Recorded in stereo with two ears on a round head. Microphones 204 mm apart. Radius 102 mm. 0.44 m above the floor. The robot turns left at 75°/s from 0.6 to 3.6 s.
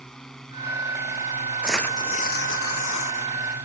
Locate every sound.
0.0 s a drone: 175° left; by 3.6 s 50° right
1.6 s tearing paper: 175° right; by 3.3 s 65° left